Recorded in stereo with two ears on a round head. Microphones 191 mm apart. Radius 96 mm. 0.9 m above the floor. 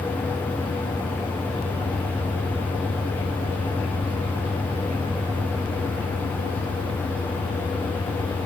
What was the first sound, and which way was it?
Only background noise.